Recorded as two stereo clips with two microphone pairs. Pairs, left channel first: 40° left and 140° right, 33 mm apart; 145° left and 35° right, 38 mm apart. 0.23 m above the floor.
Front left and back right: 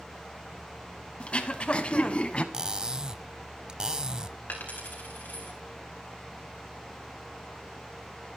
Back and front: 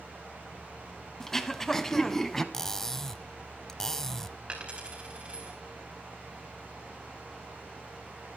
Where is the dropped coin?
25° left, 4 m.